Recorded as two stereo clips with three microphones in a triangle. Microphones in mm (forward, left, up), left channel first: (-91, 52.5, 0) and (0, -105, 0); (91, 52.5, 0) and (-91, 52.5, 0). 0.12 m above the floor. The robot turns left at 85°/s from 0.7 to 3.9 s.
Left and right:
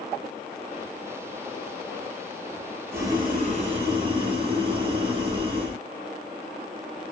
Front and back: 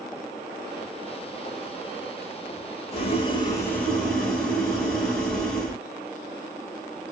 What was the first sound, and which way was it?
Boiling, 5° left.